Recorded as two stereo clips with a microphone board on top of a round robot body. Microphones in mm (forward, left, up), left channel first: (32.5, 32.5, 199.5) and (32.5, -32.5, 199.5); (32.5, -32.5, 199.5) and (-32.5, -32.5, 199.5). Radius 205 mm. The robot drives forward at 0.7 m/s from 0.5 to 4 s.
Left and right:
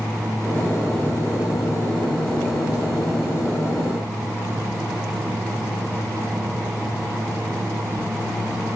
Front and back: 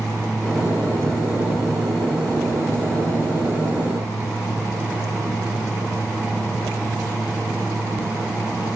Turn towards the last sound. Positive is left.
No sound to turn to.